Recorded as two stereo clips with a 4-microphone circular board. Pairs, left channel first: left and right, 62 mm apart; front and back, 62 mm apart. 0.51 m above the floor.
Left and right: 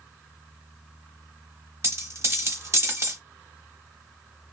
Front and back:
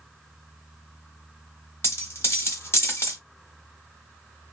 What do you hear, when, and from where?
1.8 s a dropped coin: 45° right, 1.0 m